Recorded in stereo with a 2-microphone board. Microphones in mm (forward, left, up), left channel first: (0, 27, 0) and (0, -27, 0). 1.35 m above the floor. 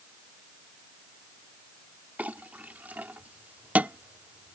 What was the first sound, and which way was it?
A clink, 30° right (ahead or behind).